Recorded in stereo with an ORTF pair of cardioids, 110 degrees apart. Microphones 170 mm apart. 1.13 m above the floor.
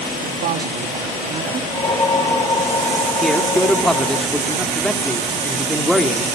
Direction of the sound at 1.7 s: 25° left.